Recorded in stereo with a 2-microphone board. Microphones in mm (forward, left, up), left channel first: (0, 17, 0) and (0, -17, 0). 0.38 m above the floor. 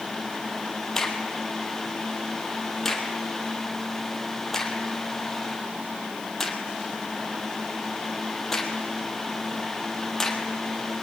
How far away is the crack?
About 2.5 m.